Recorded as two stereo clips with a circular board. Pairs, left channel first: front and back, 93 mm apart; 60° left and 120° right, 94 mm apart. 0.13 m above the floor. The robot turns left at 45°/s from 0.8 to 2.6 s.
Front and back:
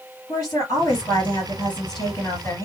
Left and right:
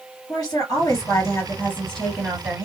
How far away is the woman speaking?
About 2.5 m.